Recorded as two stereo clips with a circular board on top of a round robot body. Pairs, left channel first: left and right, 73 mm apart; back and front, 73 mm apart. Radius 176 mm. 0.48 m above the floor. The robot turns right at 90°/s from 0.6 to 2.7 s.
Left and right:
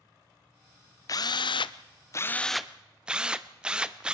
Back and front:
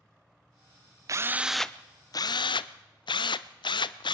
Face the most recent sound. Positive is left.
turn(degrees=-170)